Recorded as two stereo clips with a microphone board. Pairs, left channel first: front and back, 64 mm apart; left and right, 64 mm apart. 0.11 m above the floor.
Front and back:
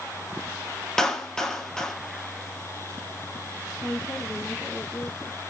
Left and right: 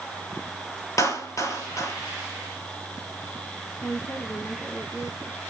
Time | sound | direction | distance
1.0 | a clap | 80° left | 2.5 m
3.8 | a woman speaking | 55° left | 8.5 m